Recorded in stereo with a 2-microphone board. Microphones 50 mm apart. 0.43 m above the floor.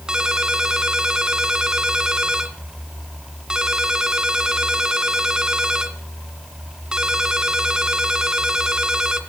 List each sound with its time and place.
0.1 s a ringtone: 15° right (ahead or behind), 1.8 m